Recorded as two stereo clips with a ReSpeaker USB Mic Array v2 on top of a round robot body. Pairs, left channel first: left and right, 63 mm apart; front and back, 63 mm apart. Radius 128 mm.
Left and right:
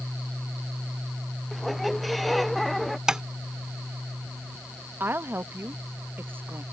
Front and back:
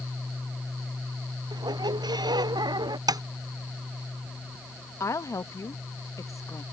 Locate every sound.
1.5 s a squeak: straight behind
3.1 s tapping: 170° right
5.0 s a woman speaking: 35° right